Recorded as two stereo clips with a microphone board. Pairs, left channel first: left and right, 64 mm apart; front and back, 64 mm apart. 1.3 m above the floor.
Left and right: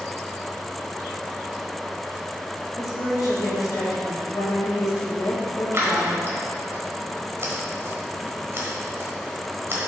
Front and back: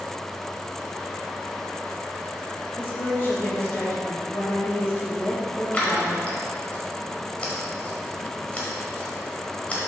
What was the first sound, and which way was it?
A woman speaking, 55° left.